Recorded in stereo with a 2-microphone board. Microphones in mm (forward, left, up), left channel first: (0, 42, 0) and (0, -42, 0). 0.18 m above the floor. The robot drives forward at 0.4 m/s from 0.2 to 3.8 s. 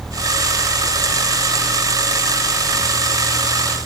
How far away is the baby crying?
I don't hear a baby crying.